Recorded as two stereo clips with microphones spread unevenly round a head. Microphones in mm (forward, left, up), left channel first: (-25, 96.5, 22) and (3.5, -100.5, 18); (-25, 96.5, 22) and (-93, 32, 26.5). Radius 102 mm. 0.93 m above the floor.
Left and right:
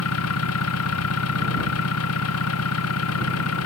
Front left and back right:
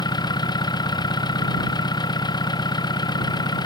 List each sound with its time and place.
0.0 s an engine running: 85° left